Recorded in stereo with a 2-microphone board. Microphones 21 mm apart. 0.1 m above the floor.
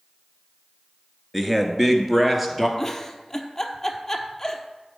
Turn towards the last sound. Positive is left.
turn(degrees=15)  # may be behind; listen again after turning